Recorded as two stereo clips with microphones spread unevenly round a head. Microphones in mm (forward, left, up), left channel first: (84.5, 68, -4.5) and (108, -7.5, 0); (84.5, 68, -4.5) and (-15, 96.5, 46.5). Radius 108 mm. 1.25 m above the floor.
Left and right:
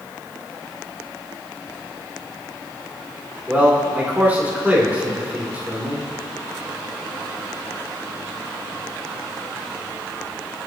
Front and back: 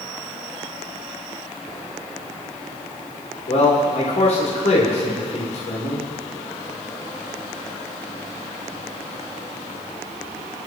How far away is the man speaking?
About 3.5 m.